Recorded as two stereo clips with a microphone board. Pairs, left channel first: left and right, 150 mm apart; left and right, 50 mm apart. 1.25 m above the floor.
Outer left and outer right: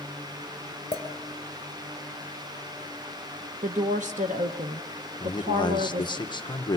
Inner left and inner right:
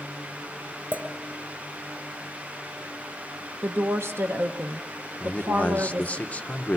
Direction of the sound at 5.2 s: 30° left (ahead or behind).